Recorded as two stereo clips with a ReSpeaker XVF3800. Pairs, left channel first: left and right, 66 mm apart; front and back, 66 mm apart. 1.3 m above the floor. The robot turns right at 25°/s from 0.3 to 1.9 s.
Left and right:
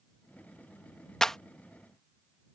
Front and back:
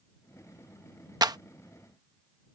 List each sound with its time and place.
1.2 s a clap: 170° left; by 1.4 s 175° left